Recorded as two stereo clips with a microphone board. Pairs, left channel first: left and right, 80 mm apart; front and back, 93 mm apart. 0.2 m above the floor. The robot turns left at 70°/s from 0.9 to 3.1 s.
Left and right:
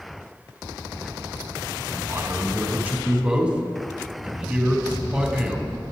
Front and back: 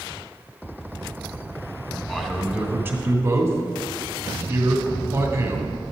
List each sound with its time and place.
2.1 s a man speaking: 85° right, 1.2 m; by 5.7 s 155° right, 1.2 m